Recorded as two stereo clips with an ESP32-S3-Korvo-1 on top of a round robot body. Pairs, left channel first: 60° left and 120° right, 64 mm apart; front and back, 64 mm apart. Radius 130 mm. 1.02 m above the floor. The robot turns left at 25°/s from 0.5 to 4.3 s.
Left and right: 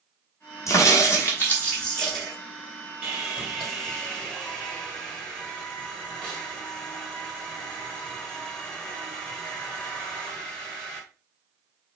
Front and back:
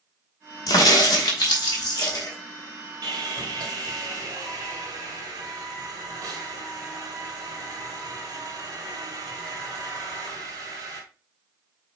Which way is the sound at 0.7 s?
15° left.